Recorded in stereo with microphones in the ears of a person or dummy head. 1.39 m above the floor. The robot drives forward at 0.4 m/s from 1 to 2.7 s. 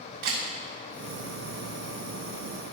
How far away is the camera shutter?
About 1.7 m.